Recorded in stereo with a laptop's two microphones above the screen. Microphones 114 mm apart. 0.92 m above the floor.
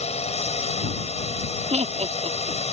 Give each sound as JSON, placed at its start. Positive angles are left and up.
{"t": 0.0, "sound": "a drone", "side_deg": 65}
{"t": 1.7, "sound": "laughter", "side_deg": -70}